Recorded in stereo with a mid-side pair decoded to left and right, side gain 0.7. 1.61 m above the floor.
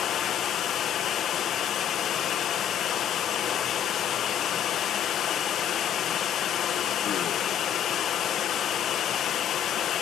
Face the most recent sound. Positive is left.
turn(degrees=45)